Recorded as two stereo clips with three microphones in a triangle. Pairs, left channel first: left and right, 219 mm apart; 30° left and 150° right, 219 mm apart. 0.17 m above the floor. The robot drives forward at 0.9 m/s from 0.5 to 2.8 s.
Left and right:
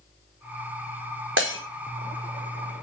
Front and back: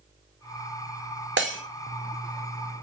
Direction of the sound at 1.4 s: 120° right.